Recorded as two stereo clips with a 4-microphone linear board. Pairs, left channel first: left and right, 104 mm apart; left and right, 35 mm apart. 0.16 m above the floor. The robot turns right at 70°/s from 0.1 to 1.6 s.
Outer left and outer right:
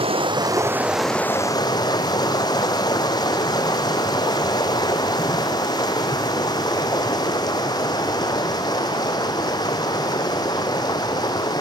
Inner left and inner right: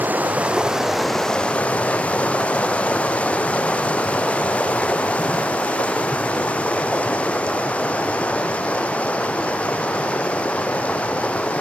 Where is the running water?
65° right, 2 m; by 11.6 s 40° left, 2 m.